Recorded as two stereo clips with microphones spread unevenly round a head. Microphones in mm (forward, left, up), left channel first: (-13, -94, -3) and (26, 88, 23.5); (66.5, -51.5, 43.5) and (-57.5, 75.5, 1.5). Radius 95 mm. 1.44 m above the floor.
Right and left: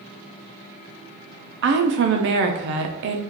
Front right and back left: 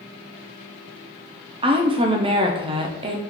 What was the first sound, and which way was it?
A woman speaking, 65° left.